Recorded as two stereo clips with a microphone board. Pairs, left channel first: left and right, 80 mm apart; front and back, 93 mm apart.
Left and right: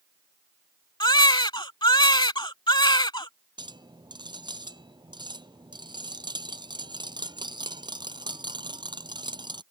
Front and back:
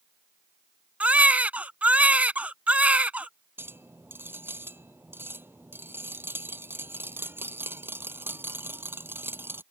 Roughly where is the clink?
Behind right.